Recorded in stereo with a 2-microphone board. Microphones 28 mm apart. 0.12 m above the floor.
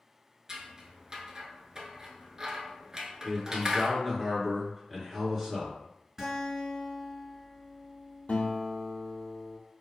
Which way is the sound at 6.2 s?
10° right (ahead or behind).